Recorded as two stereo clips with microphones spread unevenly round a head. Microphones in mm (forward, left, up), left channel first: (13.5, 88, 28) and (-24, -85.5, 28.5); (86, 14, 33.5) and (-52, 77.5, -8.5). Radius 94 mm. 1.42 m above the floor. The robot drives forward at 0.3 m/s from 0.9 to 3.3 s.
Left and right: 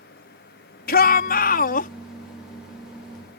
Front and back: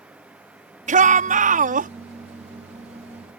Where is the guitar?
No guitar in this recording.